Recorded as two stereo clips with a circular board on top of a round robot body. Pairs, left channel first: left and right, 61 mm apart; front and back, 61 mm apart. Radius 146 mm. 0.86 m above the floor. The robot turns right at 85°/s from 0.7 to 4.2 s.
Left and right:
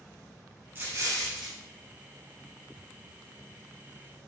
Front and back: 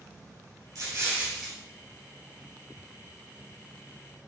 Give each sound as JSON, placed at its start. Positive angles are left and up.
{"t": 0.8, "sound": "an explosion", "azimuth_deg": -155, "distance_m": 4.0}